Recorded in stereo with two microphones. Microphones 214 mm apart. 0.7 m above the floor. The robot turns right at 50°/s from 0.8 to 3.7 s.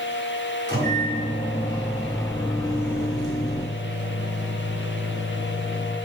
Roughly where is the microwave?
Ahead right.